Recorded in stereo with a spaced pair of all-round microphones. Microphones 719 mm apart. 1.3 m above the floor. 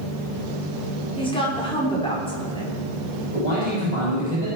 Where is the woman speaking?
5° left (ahead or behind), 4 m.